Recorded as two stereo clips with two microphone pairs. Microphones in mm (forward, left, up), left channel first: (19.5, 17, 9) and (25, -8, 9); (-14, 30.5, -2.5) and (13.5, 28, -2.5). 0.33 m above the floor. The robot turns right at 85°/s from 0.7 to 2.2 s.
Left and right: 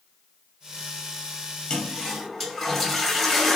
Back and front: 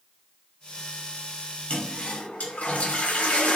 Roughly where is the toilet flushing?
Behind left.